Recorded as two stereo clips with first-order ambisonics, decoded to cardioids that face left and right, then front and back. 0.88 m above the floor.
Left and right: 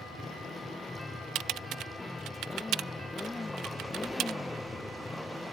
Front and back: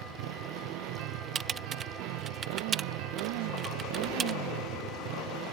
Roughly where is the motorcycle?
Behind.